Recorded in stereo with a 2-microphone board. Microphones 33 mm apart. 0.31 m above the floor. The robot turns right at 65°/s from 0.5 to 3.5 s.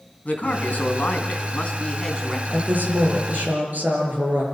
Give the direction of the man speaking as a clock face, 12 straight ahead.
10 o'clock.